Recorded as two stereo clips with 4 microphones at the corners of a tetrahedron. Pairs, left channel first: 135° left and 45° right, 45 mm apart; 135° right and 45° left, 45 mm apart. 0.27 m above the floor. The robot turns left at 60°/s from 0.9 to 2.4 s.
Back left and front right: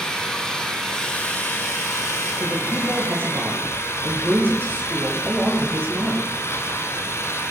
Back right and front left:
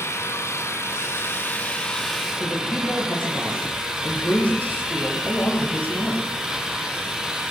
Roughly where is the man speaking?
Right.